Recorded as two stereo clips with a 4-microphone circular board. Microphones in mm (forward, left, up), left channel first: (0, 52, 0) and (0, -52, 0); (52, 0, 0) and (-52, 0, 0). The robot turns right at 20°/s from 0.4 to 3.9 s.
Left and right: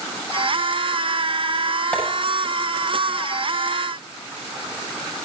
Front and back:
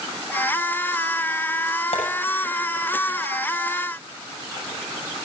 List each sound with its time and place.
1.9 s tapping: 15° left, 7 m